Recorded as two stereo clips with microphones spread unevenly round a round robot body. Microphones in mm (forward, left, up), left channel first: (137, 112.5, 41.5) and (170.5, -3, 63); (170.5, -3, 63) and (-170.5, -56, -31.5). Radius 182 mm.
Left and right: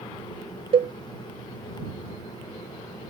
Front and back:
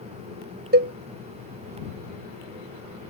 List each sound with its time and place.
0.7 s a cowbell: 120° right